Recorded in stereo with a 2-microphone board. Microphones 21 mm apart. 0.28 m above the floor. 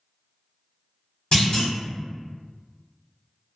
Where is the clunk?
45° left (ahead or behind), 1.5 m.